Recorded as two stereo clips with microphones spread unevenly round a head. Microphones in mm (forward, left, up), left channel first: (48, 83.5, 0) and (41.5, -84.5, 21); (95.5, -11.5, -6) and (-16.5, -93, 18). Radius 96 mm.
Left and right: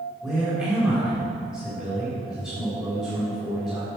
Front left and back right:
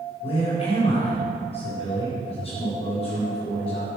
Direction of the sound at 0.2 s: 15° right.